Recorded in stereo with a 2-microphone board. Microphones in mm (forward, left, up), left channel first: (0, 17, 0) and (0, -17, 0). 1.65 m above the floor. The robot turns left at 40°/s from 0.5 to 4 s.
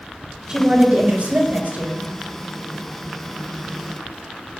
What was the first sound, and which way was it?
A woman speaking, 30° right.